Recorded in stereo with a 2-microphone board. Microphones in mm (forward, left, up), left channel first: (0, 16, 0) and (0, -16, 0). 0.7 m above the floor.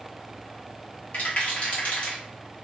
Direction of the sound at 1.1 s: 45° left (ahead or behind).